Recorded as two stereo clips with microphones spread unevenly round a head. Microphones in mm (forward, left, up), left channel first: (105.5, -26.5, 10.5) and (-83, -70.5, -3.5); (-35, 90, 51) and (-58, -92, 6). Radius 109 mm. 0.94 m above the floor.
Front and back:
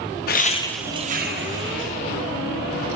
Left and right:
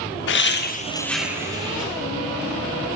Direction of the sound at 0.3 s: 55° left.